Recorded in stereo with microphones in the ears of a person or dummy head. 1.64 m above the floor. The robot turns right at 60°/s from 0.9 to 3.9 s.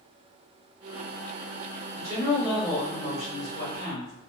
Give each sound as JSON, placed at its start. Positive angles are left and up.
{"t": 1.9, "sound": "a woman speaking", "azimuth_deg": -25, "distance_m": 1.8}